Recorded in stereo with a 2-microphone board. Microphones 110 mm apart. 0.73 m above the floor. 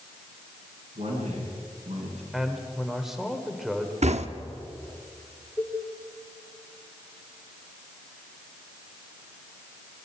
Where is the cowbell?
20° left (ahead or behind), 2.5 m.